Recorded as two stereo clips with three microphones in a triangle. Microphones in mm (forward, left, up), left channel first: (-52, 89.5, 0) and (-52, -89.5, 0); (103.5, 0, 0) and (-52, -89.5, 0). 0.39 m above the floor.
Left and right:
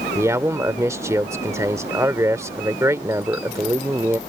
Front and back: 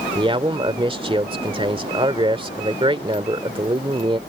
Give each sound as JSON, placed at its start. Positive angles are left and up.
{"t": 0.1, "sound": "a man speaking", "azimuth_deg": -145}